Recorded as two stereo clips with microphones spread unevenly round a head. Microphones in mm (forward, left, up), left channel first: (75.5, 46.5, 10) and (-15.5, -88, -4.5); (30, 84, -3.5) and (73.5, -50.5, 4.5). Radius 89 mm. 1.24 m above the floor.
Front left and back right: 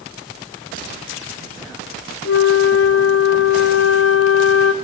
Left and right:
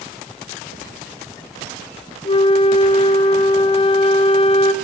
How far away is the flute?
About 0.6 m.